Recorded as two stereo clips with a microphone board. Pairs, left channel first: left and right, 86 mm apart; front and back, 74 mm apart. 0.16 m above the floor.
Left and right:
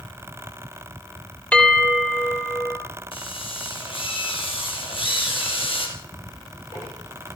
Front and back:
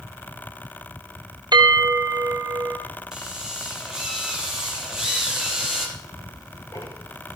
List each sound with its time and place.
1.5 s a bell: 165° left, 2.5 m
3.1 s a drill: 95° left, 4.5 m
6.0 s ticking: 40° left, 4 m